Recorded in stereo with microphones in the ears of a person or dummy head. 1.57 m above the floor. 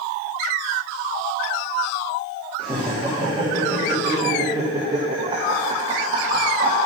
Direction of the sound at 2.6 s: 10° right (ahead or behind).